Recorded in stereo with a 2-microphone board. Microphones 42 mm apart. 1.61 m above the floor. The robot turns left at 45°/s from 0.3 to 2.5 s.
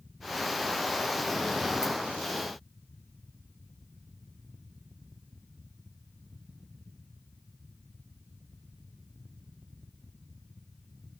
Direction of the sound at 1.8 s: 70° right (ahead or behind).